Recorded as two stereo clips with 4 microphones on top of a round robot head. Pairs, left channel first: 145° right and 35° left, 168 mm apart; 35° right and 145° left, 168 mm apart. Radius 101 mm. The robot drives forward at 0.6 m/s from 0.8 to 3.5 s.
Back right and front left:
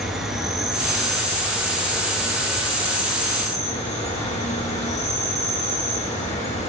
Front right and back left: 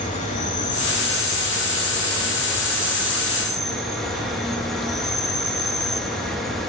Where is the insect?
55° right, 2 m; by 6.7 s 120° right, 2 m.